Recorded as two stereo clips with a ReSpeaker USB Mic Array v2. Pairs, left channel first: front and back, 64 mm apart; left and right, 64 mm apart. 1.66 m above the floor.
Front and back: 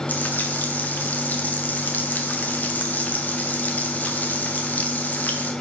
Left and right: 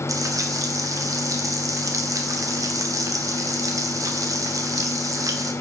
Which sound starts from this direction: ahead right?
Frying, at 0.1 s.